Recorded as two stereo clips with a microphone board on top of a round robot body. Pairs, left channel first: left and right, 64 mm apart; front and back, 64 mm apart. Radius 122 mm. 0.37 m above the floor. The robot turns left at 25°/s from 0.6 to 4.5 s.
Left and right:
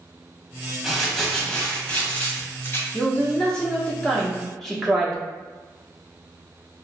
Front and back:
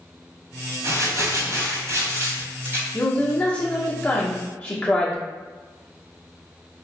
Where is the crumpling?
175° right, 1.6 m; by 2.8 s 135° left, 1.6 m.